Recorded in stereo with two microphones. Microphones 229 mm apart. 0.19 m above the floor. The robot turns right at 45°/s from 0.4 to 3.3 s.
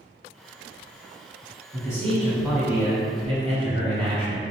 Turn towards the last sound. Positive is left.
turn(degrees=-135)